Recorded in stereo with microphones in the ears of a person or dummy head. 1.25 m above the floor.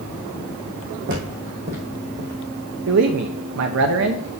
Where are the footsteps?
60° right (ahead or behind), 3 m; by 2.4 s 40° right (ahead or behind), 3 m.